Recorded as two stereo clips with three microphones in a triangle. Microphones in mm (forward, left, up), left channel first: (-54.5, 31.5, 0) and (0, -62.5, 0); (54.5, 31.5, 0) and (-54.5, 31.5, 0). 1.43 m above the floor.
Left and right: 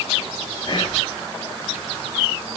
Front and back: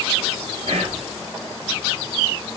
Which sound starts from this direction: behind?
Whispering, at 0.7 s.